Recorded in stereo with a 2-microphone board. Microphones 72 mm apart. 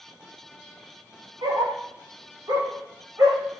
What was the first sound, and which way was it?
A dog barking, 70° right (ahead or behind).